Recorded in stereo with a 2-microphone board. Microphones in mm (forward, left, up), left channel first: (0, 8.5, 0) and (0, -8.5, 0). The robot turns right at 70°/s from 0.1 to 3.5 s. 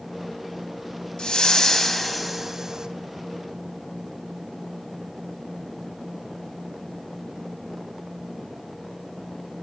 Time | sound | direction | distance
1.2 | a whoosh | 110° left | 0.5 m